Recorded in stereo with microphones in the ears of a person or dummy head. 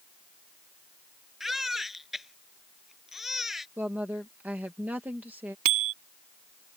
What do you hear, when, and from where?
1.4 s a baby crying: centre (ahead or behind)
3.8 s a woman speaking: 5° right (ahead or behind)
5.7 s a bicycle bell: 45° right (ahead or behind)